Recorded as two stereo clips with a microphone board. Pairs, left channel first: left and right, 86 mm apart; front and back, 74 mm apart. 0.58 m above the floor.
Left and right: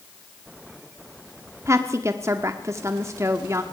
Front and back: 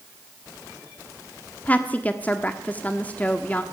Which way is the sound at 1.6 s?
55° right.